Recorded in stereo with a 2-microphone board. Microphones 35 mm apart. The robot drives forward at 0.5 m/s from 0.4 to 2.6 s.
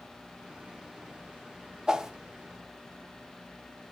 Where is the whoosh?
20° right (ahead or behind), 0.9 m; by 2.1 s 15° right (ahead or behind), 1.0 m.